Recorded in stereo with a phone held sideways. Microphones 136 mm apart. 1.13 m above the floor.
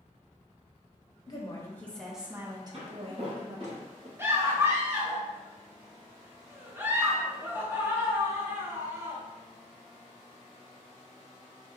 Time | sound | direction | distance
1.3 | a woman speaking | 30° left (ahead or behind) | 1.0 m
2.7 | footsteps | 55° right (ahead or behind) | 1.8 m
4.2 | a scream | 20° right (ahead or behind) | 1.0 m